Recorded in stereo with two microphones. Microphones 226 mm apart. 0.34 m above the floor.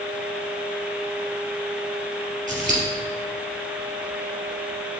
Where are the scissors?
35° right (ahead or behind), 3 m.